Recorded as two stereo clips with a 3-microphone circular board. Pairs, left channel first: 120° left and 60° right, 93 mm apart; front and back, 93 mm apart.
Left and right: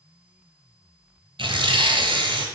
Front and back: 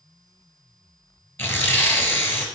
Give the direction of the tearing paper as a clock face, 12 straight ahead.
2 o'clock.